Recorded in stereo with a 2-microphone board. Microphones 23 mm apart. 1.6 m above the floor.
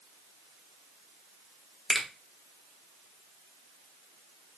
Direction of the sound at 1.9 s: 20° right (ahead or behind).